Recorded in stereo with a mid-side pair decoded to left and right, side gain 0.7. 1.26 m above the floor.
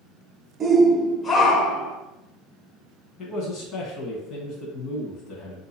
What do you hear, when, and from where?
0.6 s a shout: 25° right, 0.8 m; by 2.0 s 65° left, 1.4 m
3.2 s a man speaking: 50° left, 1.3 m